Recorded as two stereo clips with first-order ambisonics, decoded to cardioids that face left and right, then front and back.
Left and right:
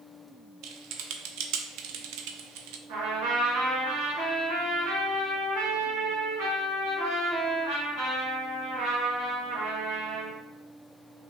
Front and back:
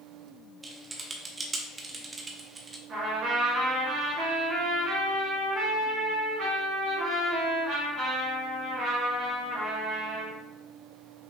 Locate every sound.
0.6 s typing on a keyboard: 105° right, 0.5 m
2.9 s a trumpet: 120° right, 2 m